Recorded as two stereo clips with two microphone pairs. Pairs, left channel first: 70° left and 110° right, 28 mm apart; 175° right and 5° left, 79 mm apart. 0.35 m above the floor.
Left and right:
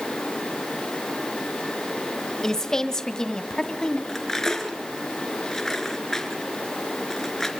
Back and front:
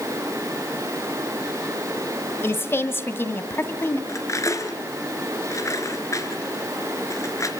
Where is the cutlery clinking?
140° left, 3.5 m.